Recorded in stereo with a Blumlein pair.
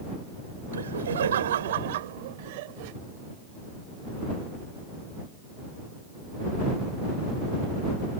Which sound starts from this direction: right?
Laughter, at 0.7 s.